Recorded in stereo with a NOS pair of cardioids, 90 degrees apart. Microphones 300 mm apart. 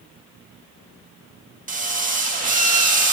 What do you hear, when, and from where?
1.7 s a drill: 25° right, 1.9 m